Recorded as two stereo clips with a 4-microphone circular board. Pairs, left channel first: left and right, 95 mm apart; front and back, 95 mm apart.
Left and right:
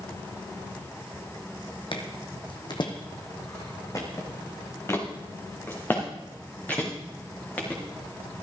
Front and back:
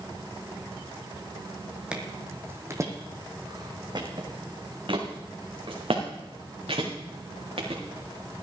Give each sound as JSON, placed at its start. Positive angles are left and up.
{"t": 1.9, "sound": "footsteps", "azimuth_deg": 100, "distance_m": 1.4}